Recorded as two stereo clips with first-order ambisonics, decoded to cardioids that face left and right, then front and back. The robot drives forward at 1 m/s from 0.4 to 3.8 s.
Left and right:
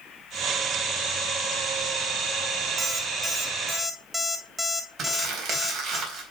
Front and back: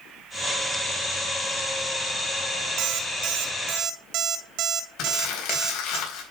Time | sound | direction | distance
2.8 | an alarm clock | 160° right | 1.3 m
5.0 | crumpling | 40° right | 4 m